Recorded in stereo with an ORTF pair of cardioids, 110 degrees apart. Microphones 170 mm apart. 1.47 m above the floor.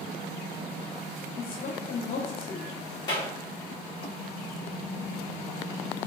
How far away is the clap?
About 1.8 m.